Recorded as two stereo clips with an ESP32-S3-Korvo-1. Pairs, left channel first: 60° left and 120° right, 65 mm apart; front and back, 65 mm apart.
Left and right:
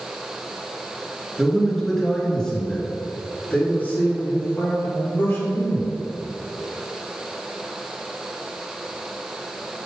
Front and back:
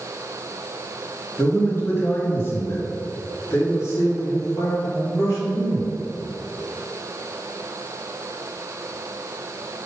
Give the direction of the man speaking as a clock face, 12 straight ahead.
1 o'clock.